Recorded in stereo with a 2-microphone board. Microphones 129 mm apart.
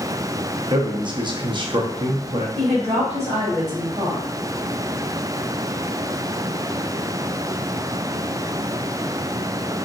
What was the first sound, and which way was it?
A man speaking, 35° right (ahead or behind).